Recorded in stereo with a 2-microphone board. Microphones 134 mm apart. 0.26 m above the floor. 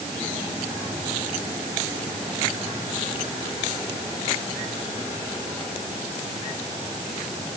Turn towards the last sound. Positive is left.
No sound to turn to.